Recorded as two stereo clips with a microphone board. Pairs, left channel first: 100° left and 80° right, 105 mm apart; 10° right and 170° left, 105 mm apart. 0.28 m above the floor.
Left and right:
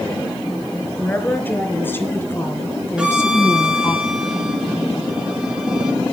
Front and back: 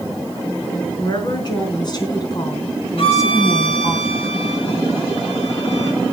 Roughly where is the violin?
Ahead.